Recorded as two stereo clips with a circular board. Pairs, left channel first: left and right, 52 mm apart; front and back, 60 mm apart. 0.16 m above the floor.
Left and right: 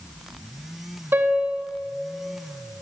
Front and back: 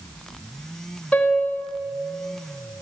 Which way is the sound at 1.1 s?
70° right.